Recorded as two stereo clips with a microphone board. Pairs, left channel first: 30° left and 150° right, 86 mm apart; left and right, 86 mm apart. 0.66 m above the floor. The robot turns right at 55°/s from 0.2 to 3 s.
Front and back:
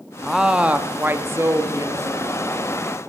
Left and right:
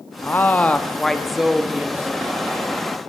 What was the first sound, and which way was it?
A woman speaking, 125° left.